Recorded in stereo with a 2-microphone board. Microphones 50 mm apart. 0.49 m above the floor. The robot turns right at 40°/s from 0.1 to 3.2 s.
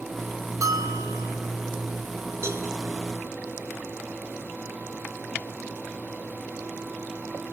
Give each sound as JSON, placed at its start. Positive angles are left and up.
{"t": 0.6, "sound": "a bell", "azimuth_deg": -95, "distance_m": 3.0}
{"t": 2.4, "sound": "a cowbell", "side_deg": -55, "distance_m": 5.5}